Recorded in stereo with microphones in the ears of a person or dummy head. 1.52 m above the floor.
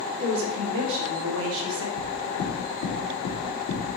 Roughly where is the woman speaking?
Right.